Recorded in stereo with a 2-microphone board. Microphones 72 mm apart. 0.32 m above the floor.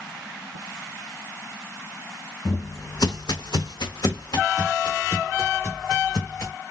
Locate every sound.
2.5 s footsteps: 45° left (ahead or behind), 0.9 m; by 6.5 s 40° left (ahead or behind), 3 m